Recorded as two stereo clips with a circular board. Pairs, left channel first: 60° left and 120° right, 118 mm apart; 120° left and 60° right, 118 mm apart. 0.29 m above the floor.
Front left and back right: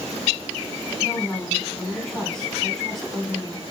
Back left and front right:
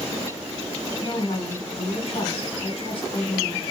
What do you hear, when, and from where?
1.0 s a woman speaking: 145° left, 3 m